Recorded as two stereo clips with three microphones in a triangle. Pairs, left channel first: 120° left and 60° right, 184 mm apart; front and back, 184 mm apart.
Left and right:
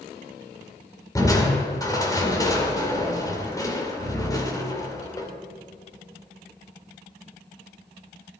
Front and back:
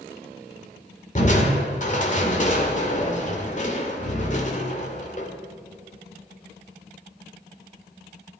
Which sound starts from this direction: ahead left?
Crushing, at 1.1 s.